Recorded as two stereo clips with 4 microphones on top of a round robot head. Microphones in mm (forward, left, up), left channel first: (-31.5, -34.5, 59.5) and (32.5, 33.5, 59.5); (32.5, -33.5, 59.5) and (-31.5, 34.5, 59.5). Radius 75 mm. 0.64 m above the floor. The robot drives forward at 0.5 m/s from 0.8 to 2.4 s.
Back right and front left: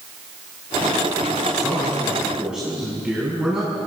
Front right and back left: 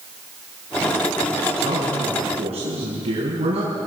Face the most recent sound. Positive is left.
turn(degrees=130)